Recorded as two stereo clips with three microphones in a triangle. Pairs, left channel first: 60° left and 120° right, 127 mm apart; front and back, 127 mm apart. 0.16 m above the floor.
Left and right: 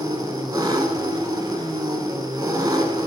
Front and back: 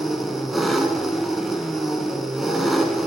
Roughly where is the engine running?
Right.